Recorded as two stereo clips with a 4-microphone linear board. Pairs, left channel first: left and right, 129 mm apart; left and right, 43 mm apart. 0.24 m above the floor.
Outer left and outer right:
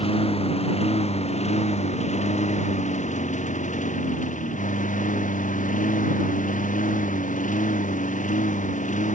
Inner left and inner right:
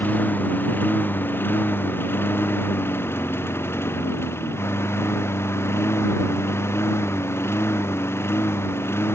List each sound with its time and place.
0.0 s a lawn mower: 50° left (ahead or behind); by 9.2 s 75° left (ahead or behind)